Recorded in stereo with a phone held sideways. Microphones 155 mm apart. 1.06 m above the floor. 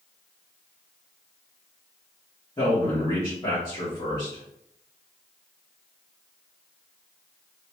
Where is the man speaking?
30° left (ahead or behind), 1.7 m.